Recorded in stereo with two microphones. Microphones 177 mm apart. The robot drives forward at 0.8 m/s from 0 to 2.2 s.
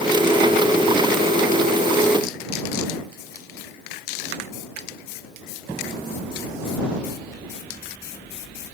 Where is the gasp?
No gasp in this recording.